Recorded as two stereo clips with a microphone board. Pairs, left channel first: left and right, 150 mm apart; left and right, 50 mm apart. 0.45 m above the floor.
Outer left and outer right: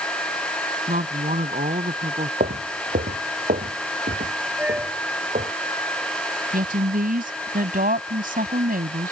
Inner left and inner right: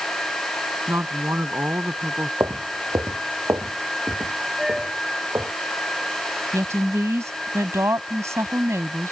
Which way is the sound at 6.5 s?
70° right (ahead or behind).